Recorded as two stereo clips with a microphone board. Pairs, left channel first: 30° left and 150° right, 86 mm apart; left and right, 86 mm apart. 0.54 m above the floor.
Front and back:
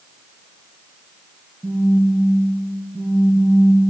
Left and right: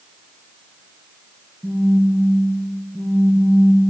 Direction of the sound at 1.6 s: 175° left.